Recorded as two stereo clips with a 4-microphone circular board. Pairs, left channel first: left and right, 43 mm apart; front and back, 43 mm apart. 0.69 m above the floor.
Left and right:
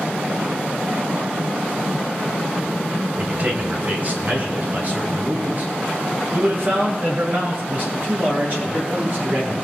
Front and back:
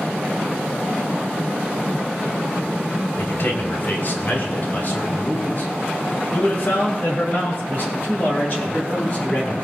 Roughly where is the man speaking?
Ahead right.